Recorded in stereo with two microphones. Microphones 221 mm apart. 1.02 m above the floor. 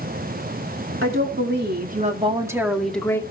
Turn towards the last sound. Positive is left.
turn(degrees=10)  # may be behind; listen again after turning